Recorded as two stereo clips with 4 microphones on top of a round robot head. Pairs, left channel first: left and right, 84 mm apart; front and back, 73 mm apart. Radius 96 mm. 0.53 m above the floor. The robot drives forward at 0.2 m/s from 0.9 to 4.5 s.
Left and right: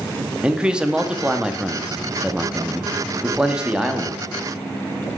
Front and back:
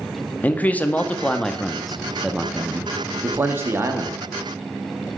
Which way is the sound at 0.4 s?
25° right.